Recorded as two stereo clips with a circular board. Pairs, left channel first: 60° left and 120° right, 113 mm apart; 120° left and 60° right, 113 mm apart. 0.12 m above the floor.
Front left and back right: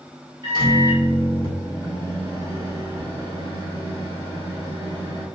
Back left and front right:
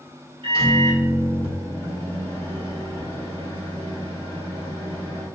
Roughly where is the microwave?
Right.